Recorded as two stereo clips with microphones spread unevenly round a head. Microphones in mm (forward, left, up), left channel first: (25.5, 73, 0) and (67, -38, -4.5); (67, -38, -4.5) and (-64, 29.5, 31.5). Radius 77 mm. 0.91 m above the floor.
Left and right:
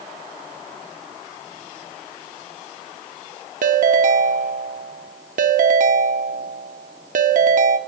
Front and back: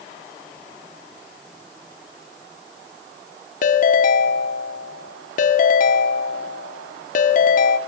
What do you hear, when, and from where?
3.6 s a ringtone: 60° right, 1.3 m